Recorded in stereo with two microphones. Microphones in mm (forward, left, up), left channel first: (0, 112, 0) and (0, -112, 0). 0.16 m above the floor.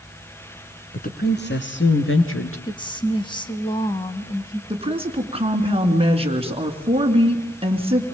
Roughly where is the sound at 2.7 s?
Centre.